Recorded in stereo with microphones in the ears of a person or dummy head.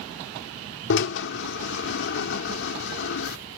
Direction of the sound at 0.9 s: 65° left (ahead or behind).